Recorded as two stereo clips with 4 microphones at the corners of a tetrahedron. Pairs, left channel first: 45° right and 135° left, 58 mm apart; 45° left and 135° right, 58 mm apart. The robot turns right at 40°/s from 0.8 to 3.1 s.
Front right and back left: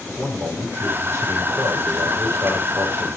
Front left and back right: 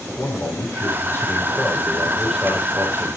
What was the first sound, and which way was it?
A man speaking, 85° left.